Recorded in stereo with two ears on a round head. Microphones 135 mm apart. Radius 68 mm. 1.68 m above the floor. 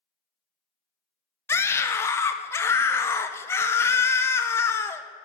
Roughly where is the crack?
I don't hear a crack.